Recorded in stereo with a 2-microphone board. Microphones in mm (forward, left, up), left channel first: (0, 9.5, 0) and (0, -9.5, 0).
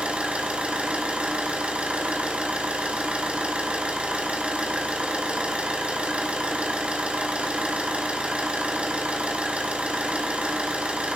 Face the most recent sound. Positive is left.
turn(degrees=-85)